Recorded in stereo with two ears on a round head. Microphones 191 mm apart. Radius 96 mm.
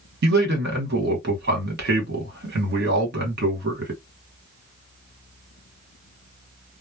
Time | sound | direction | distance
0.2 | a man speaking | 50° right (ahead or behind) | 1.3 m